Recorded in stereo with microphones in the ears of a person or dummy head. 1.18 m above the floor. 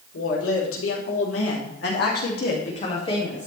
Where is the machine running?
I don't hear a machine running.